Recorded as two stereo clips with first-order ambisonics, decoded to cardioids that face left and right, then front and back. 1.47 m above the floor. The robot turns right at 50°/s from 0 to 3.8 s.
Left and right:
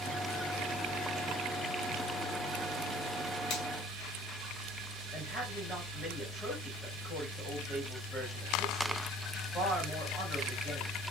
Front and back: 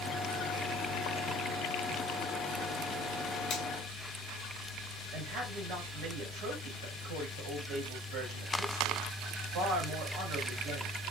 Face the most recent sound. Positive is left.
turn(degrees=170)